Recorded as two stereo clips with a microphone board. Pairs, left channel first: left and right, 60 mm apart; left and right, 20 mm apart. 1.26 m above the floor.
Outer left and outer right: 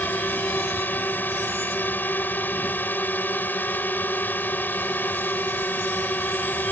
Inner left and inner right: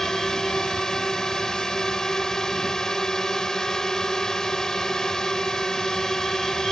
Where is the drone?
30° left (ahead or behind).